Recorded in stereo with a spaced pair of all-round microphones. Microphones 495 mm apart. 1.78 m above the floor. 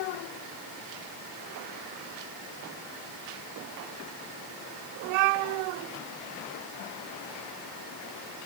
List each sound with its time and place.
Only background noise.